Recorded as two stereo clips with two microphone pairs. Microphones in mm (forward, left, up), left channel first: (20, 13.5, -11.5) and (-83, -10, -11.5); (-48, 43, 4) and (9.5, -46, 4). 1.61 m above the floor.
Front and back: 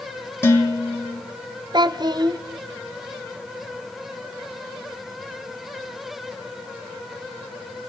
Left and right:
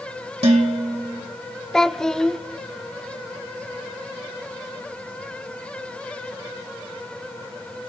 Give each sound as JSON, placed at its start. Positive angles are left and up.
{"t": 0.4, "sound": "dishes clattering", "azimuth_deg": -55, "distance_m": 1.8}
{"t": 1.7, "sound": "a child speaking", "azimuth_deg": -155, "distance_m": 0.6}